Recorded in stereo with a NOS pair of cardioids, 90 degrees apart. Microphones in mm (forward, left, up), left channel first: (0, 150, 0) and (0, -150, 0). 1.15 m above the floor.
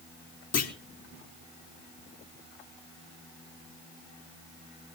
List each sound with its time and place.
0.5 s a clunk: 55° left, 3 m